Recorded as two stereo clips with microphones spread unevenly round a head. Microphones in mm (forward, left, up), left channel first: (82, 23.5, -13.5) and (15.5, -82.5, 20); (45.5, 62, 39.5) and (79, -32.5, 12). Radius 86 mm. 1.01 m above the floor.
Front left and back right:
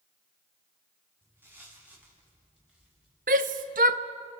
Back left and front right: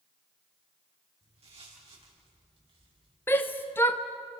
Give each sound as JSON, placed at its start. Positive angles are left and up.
{"t": 1.2, "sound": "footsteps", "azimuth_deg": -50, "distance_m": 9.5}
{"t": 3.3, "sound": "a shout", "azimuth_deg": -170, "distance_m": 0.8}